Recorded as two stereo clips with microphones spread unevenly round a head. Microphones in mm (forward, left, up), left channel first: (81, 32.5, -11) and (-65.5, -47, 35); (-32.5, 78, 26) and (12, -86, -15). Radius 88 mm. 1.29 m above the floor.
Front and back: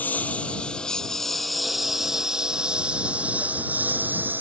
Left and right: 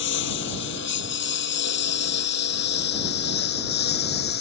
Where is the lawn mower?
115° left; by 4.4 s 130° left.